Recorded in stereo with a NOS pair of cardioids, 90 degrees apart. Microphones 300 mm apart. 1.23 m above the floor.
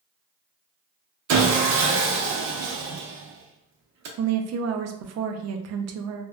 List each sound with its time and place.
1.3 s sawing: 65° right, 0.7 m
4.2 s a woman speaking: 60° right, 0.5 m